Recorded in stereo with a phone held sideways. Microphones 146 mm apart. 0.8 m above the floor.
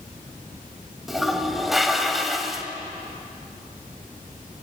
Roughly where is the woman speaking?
No woman speaking in this recording.